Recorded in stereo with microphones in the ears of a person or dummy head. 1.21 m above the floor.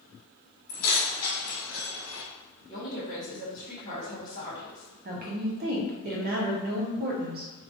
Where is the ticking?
No ticking in this recording.